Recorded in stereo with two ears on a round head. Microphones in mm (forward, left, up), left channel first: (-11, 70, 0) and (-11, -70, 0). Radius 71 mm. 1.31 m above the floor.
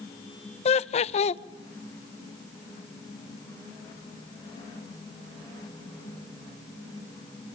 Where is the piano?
I don't hear a piano.